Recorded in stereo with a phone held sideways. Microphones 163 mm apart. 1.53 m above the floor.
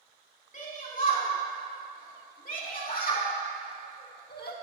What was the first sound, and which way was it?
A shout, 50° left (ahead or behind).